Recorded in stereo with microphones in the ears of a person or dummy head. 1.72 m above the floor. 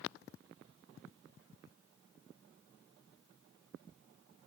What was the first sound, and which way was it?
Only background noise.